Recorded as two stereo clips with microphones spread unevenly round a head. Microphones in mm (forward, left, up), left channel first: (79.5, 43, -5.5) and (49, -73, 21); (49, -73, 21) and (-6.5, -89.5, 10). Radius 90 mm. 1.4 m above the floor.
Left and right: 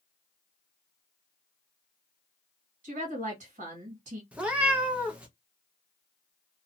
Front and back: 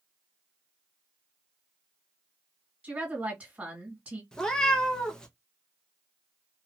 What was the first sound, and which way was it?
A woman speaking, 100° right.